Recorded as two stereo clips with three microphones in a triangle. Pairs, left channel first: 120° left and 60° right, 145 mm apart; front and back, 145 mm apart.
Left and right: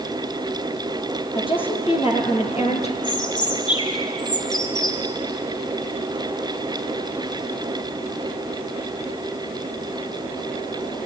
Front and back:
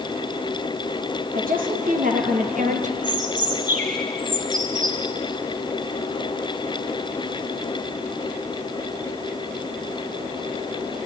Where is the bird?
175° left, 3 m.